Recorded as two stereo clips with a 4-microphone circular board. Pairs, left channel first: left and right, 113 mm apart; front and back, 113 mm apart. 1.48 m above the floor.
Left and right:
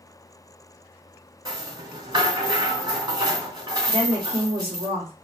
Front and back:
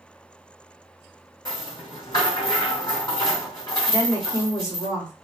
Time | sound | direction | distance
1.4 | a rattle | 50° right | 2.0 m
3.9 | a woman speaking | 65° right | 1.5 m